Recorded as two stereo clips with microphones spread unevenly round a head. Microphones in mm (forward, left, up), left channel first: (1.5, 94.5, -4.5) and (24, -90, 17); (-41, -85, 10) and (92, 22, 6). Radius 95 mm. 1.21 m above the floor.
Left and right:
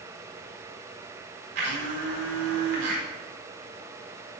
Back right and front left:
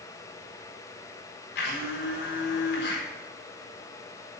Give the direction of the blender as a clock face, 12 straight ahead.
4 o'clock.